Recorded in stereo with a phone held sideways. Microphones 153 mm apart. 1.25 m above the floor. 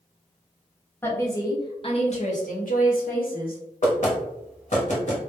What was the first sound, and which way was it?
A woman speaking, 15° left (ahead or behind).